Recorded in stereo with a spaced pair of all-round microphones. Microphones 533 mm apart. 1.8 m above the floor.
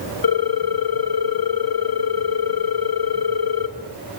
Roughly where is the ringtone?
Left.